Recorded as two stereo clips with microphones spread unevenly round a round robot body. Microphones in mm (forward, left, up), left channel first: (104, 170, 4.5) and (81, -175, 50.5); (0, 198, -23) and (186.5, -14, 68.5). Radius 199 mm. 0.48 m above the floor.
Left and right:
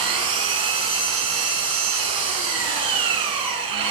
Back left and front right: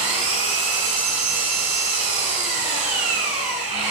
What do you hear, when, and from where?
0.0 s an engine running: 70° right, 5 m